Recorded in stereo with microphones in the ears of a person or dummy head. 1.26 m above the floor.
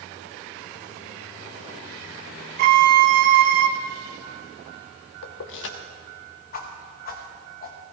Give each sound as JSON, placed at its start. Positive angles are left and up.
{"t": 2.6, "sound": "a violin", "side_deg": -55, "distance_m": 0.9}
{"t": 5.2, "sound": "keys jangling", "side_deg": 70, "distance_m": 1.4}
{"t": 6.5, "sound": "a whoosh", "side_deg": 45, "distance_m": 1.4}